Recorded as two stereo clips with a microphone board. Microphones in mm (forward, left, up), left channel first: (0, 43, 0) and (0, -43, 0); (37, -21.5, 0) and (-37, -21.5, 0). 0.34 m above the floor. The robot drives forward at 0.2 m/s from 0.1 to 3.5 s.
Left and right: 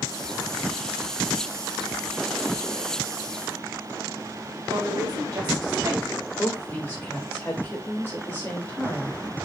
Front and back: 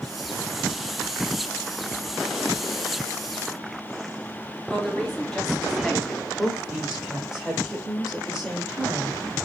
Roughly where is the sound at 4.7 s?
Right.